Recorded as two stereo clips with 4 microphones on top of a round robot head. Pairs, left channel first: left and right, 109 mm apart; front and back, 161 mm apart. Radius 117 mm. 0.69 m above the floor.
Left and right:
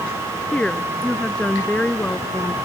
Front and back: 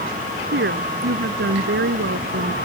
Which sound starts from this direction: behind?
A woman speaking, at 0.5 s.